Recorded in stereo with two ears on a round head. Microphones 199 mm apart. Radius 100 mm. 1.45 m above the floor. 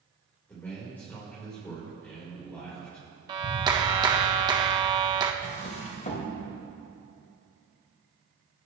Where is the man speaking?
10° left (ahead or behind), 4.5 m.